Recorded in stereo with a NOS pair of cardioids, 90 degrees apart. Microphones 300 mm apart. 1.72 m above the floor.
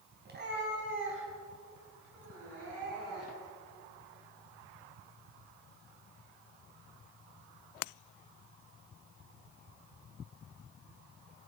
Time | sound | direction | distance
0.2 | a cat meowing | 35° right | 4 m